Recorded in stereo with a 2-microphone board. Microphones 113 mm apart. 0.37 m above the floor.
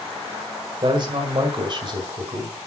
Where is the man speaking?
45° right (ahead or behind), 1.9 m; by 2.6 s 40° right (ahead or behind), 2 m.